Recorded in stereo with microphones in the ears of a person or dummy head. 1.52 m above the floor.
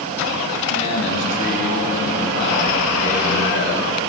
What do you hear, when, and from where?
0.7 s a man speaking: 55° left (ahead or behind), 2 m; by 3.9 s 65° left (ahead or behind), 3.5 m